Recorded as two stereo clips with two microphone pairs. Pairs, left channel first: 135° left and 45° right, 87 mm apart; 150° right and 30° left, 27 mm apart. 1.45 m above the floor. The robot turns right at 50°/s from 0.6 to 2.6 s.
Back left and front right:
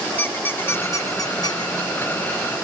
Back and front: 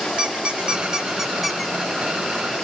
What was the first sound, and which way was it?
A squeak, 70° left.